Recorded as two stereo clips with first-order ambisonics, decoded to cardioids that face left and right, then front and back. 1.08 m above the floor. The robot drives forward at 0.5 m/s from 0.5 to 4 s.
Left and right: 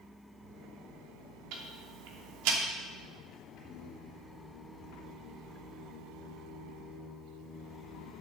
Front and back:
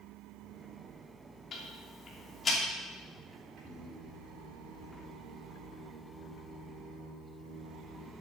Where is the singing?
135° left, 3.5 m; by 8.1 s 140° left, 3.5 m.